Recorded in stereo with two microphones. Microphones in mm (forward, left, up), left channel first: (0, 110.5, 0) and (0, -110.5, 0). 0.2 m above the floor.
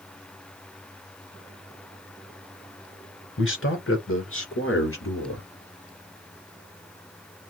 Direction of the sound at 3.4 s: 60° left (ahead or behind).